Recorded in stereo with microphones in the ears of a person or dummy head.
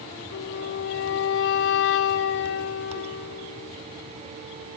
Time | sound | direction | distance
0.3 | a flute | 60° left (ahead or behind) | 1.0 m